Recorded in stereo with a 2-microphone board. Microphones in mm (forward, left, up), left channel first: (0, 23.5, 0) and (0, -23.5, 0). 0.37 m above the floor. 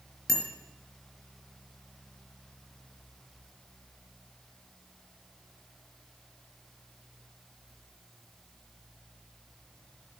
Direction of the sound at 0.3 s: 5° left (ahead or behind).